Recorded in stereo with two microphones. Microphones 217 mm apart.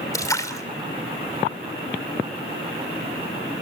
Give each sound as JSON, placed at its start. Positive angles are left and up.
{"t": 0.1, "sound": "a splash", "side_deg": 15, "distance_m": 2.5}